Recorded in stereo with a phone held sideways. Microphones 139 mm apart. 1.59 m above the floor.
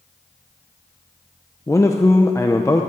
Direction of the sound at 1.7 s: 20° left (ahead or behind).